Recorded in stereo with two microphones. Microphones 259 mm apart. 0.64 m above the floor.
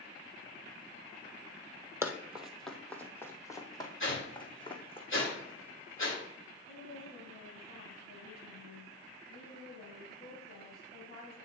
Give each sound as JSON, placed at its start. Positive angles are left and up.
{"t": 2.0, "sound": "running footsteps", "side_deg": -10, "distance_m": 0.9}
{"t": 4.0, "sound": "a whoosh", "side_deg": 50, "distance_m": 2.0}
{"t": 6.7, "sound": "a woman speaking", "side_deg": 35, "distance_m": 3.5}